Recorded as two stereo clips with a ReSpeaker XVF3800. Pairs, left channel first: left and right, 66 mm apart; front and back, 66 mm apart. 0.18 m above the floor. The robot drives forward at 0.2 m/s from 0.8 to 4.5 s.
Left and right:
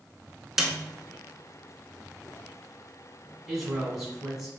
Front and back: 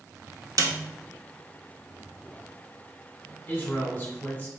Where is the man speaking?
5° right, 1.3 m; by 4.5 s 10° right, 1.2 m.